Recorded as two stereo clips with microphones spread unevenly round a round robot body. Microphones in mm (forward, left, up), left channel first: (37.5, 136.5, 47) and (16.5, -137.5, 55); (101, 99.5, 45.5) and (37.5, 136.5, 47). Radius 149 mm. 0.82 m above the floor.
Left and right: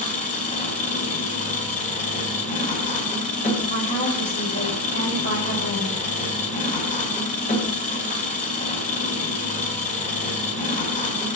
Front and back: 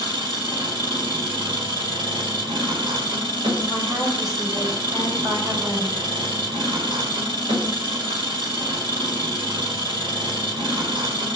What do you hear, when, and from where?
0.0 s an engine running: 150° left, 1.5 m
3.7 s a woman speaking: 145° left, 4.5 m